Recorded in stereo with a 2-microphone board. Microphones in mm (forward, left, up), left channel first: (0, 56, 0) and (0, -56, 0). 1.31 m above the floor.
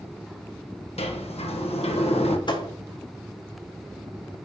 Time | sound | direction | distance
1.0 | a sliding door | 65° left (ahead or behind) | 1.2 m
2.5 | a thud | 45° left (ahead or behind) | 1.2 m